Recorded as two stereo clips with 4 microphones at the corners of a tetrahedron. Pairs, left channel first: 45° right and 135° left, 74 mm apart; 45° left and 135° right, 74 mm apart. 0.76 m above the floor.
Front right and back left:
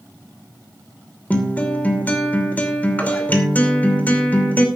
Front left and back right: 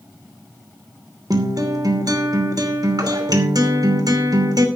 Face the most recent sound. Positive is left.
turn(degrees=-115)